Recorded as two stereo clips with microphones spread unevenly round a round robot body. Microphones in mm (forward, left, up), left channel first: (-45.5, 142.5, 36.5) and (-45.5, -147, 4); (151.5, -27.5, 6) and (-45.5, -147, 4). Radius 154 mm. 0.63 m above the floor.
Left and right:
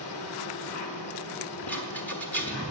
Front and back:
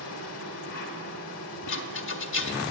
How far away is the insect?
About 1.2 m.